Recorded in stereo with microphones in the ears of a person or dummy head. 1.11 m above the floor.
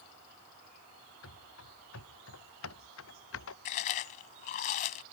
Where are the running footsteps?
80° left; by 3.5 s 70° left (ahead or behind).